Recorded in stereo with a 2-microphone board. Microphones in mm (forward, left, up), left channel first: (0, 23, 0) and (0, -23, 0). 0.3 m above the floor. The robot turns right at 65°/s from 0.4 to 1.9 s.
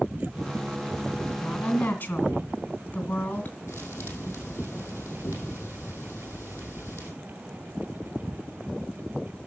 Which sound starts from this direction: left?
A thud, at 3.7 s.